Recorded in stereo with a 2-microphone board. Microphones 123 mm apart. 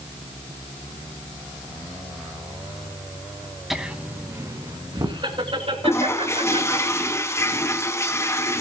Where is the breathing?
No breathing in this recording.